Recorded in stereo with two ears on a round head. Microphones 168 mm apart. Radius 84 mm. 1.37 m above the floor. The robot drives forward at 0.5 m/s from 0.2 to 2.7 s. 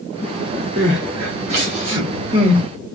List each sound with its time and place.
0.8 s crying: 35° right (ahead or behind), 1.2 m; by 2.6 s 25° right (ahead or behind), 1.6 m